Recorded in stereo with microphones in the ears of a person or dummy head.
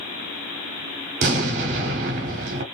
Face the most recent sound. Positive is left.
turn(degrees=-40)  # may be behind; listen again after turning